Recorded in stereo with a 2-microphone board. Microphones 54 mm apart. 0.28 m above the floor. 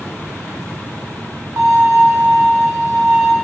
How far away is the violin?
About 0.9 m.